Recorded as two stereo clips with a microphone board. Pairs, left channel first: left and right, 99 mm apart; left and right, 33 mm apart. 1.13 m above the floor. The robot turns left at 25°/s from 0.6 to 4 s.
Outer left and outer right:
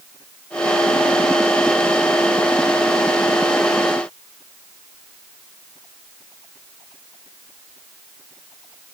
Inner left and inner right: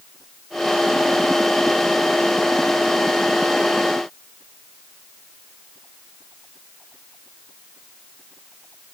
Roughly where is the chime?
No chime in this recording.